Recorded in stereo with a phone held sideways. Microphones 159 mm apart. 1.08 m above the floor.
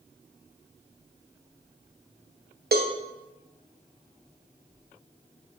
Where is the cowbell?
80° right, 0.6 m.